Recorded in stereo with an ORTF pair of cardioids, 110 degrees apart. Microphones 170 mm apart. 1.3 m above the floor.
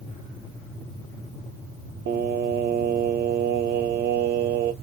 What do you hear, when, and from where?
2.1 s singing: 70° right, 0.6 m